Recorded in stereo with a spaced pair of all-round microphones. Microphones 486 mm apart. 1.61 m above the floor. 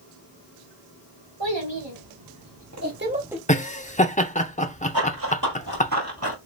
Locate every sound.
1.4 s a child speaking: 65° right (ahead or behind), 1.7 m; by 3.4 s centre (ahead or behind), 0.7 m
3.5 s laughter: 15° left (ahead or behind), 0.6 m
4.9 s running footsteps: 45° right (ahead or behind), 2 m; by 6.4 s 30° right (ahead or behind), 1.9 m